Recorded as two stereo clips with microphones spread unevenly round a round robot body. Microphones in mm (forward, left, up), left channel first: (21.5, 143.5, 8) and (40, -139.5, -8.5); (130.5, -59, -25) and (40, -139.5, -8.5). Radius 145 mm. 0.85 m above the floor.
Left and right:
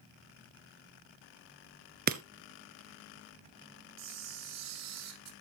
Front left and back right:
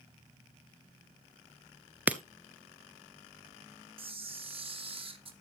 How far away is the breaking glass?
About 0.8 m.